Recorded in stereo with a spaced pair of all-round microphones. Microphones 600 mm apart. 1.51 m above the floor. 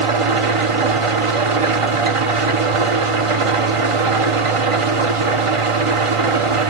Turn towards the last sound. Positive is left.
turn(degrees=-55)  # may be behind; listen again after turning